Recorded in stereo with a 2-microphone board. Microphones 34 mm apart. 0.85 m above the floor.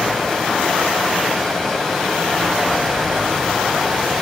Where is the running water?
15° left (ahead or behind), 4.5 m.